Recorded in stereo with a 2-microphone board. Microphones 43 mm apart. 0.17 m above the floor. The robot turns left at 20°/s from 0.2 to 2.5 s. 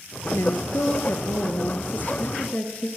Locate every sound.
0.3 s a woman speaking: 85° left, 2.5 m; by 2.9 s 45° left, 2.5 m